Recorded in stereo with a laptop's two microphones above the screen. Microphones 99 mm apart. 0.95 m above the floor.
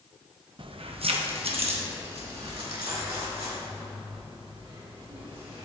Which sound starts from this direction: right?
Keys jangling, at 0.6 s.